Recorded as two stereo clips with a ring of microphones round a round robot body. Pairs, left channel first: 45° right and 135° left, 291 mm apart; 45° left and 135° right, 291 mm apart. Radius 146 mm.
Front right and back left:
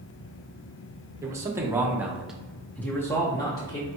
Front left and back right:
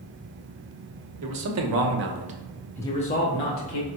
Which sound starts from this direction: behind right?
A man speaking, at 1.2 s.